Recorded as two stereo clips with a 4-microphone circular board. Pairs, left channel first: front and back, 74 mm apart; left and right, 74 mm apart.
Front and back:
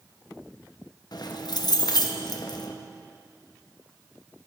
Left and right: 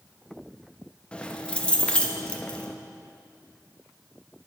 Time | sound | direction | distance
1.1 | keys jangling | 15° left | 0.6 m